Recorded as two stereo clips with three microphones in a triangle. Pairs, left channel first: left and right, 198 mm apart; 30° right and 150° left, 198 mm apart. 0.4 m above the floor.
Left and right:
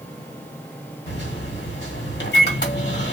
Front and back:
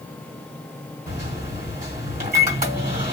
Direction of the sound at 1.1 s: 110° left.